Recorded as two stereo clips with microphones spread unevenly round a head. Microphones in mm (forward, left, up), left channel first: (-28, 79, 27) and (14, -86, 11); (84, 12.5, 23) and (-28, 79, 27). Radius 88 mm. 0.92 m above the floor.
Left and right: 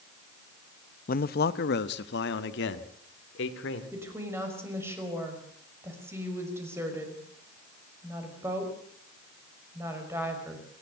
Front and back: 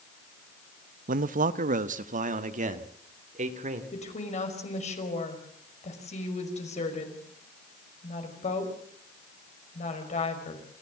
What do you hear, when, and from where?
1.1 s a man speaking: 145° left, 0.7 m; by 3.8 s 120° left, 2.5 m
3.9 s a woman speaking: straight ahead, 5.5 m